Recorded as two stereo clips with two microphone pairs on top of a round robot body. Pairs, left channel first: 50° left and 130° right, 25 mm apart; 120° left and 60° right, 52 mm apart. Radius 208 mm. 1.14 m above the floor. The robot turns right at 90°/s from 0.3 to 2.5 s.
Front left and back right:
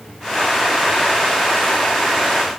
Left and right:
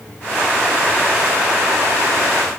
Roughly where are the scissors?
No scissors in this recording.